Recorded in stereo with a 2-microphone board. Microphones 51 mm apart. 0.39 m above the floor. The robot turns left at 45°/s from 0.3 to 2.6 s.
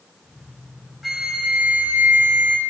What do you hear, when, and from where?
1.0 s a flute: 15° right, 0.9 m; by 2.6 s 85° right, 0.9 m